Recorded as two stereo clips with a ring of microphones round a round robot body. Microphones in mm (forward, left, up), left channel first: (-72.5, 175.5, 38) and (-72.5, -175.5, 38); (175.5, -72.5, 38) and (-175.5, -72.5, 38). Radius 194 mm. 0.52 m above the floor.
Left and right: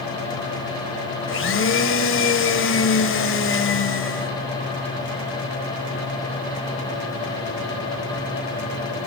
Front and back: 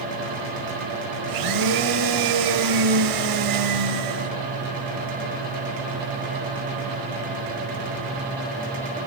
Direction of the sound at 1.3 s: 145° left.